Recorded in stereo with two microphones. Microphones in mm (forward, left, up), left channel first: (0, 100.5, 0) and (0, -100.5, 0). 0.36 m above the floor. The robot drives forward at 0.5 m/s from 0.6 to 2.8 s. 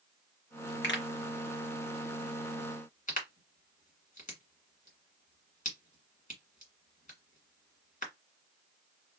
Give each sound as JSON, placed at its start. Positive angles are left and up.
{"t": 0.8, "sound": "a pop", "side_deg": 70, "distance_m": 1.3}